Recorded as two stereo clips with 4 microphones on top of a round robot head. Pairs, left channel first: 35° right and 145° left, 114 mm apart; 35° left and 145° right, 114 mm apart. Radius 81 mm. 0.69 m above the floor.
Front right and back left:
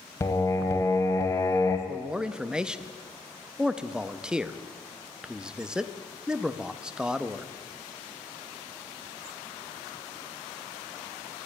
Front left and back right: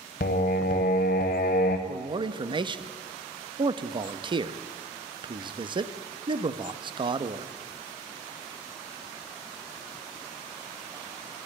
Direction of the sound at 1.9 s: 135° right.